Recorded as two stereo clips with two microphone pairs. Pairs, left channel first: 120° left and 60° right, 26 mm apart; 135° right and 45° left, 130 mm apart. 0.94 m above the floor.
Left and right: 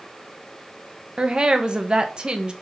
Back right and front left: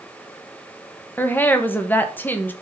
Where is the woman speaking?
75° right, 0.9 m.